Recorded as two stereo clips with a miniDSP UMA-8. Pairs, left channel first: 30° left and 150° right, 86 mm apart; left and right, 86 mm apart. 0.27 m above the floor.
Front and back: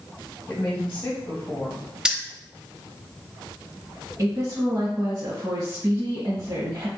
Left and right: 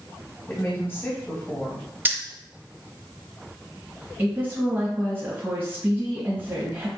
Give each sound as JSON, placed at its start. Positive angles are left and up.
{"t": 0.5, "sound": "a woman speaking", "azimuth_deg": 80, "distance_m": 1.6}
{"t": 2.0, "sound": "keys jangling", "azimuth_deg": -85, "distance_m": 0.6}
{"t": 4.2, "sound": "a woman speaking", "azimuth_deg": -140, "distance_m": 1.3}